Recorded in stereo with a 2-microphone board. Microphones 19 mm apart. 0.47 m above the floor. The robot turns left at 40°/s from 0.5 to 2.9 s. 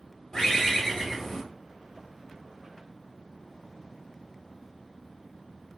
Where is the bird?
45° left, 1.5 m; by 1.4 s 10° left, 1.5 m.